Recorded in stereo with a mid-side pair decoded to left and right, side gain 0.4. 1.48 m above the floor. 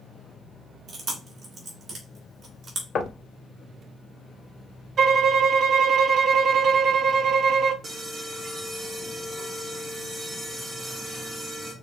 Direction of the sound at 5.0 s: 60° right.